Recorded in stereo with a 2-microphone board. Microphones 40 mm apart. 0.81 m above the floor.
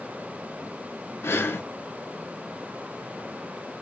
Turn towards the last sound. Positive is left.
turn(degrees=80)